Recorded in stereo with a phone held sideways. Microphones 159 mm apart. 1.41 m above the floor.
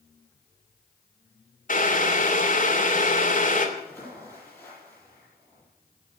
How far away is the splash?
About 10 m.